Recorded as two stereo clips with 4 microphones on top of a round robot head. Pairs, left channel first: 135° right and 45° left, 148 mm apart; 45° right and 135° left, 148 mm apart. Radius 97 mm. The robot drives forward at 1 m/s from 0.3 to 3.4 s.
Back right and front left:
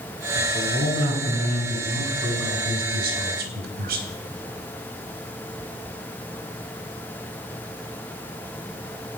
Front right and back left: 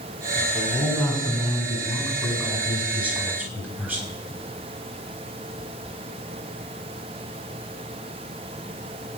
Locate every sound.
0.3 s a man speaking: 30° left, 6 m; by 4.1 s 60° left, 3.5 m